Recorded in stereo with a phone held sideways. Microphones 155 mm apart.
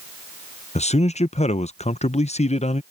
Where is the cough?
I don't hear a cough.